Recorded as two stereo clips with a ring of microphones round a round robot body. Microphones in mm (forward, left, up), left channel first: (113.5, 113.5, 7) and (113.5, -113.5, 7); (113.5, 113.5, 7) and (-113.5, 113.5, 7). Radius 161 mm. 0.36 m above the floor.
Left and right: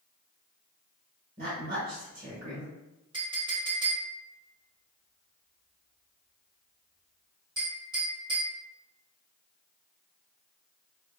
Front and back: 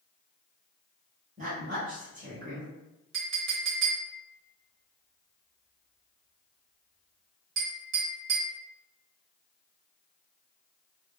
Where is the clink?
160° right, 0.9 m.